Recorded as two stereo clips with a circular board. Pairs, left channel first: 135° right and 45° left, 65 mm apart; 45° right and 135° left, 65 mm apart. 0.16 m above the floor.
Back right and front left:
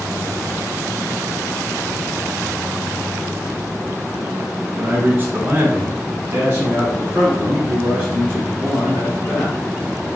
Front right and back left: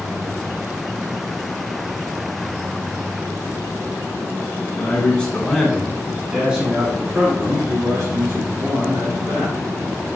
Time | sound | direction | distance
4.8 | a man speaking | 5° left | 1.3 m